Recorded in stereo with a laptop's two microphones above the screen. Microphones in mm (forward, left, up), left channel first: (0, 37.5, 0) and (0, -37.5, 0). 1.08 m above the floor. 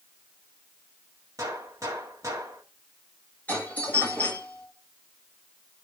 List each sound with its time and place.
1.4 s a gunshot: 45° right (ahead or behind), 1.4 m
3.5 s a doorbell: 20° left (ahead or behind), 5 m